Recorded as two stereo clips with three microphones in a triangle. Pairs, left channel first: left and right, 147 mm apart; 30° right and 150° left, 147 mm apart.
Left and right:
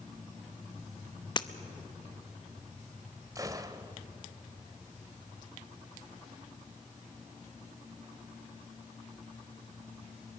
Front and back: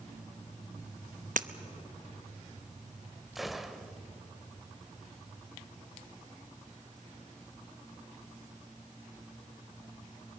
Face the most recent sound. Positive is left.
turn(degrees=-125)